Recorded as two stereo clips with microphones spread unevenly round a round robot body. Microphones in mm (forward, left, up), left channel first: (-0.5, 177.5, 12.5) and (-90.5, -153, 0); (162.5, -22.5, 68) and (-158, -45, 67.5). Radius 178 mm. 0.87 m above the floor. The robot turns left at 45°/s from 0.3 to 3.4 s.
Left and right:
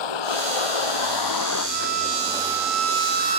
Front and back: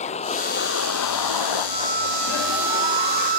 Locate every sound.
0.0 s a vehicle: 75° left; by 3.4 s 50° right
1.7 s a violin: 100° right; by 3.4 s straight behind